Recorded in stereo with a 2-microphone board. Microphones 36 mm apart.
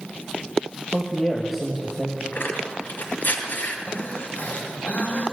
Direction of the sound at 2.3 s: 65° left (ahead or behind).